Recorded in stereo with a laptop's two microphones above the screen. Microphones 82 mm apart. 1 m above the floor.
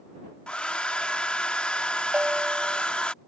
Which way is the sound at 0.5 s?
15° left (ahead or behind).